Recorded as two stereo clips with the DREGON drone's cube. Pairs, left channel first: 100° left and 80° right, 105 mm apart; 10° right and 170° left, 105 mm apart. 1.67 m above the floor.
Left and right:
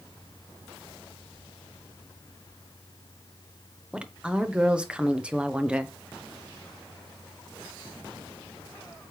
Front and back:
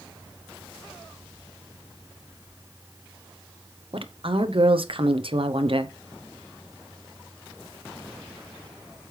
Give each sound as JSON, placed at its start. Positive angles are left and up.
{"t": 3.9, "sound": "a woman speaking", "azimuth_deg": -160, "distance_m": 1.0}